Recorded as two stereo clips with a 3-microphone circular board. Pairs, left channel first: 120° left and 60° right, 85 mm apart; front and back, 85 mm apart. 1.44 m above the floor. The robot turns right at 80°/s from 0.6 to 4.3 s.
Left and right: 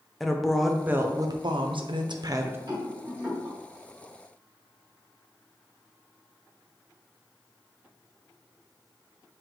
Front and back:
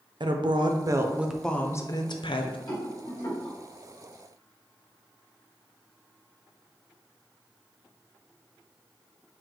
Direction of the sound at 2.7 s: 40° right.